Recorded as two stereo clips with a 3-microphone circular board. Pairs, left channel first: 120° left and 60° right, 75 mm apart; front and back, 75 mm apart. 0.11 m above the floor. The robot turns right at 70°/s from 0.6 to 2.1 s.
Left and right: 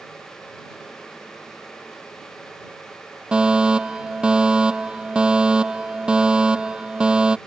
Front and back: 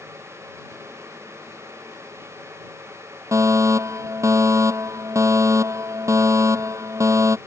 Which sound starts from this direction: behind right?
A fire alarm, at 3.3 s.